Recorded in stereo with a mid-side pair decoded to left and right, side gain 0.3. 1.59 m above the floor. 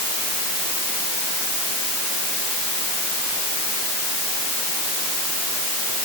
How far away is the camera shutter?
No camera shutter in this recording.